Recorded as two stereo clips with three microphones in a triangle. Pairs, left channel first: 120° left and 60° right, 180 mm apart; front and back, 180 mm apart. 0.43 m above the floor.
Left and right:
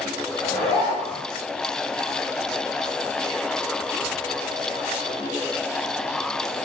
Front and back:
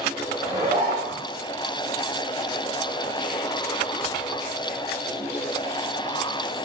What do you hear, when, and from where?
0.4 s a zipper: 175° right, 1.7 m